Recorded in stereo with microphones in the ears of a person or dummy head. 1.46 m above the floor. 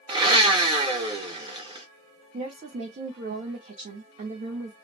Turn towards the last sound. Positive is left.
turn(degrees=-40)  # may be behind; listen again after turning